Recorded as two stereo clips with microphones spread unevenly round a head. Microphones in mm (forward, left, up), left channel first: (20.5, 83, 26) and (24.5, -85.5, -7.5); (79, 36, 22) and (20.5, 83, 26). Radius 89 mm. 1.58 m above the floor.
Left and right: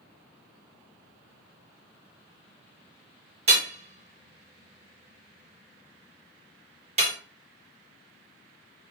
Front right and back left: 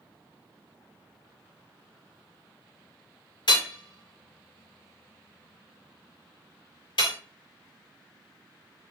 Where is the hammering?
35° right, 1.9 m.